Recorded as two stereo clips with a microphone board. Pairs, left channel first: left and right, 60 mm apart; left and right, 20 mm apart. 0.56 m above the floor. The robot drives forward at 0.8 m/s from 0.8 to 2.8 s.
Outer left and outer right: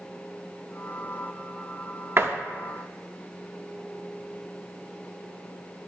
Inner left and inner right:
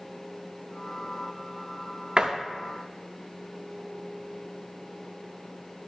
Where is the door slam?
40° right (ahead or behind), 0.7 m.